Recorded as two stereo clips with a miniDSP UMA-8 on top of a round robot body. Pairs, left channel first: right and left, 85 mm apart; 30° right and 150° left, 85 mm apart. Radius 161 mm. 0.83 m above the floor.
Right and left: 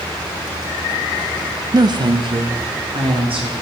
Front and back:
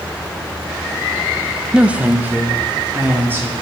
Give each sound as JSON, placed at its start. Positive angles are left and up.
{"t": 1.7, "sound": "a woman speaking", "azimuth_deg": 75, "distance_m": 0.8}